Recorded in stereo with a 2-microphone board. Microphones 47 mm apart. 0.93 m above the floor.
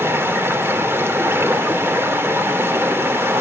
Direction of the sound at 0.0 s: 60° right (ahead or behind).